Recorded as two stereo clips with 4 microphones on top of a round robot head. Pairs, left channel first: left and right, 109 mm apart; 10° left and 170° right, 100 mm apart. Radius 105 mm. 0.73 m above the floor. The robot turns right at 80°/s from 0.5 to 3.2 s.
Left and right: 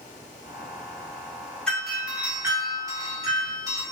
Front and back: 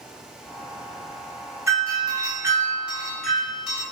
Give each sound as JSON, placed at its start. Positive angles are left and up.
{"t": 1.7, "sound": "a doorbell", "azimuth_deg": 165, "distance_m": 1.2}